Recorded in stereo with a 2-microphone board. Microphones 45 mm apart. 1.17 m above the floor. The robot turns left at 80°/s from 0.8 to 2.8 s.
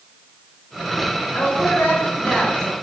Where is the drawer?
I don't hear a drawer.